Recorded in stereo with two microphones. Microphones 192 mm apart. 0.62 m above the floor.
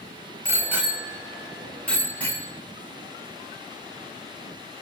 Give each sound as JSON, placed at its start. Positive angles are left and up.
{"t": 0.5, "sound": "a bicycle bell", "side_deg": -15, "distance_m": 2.5}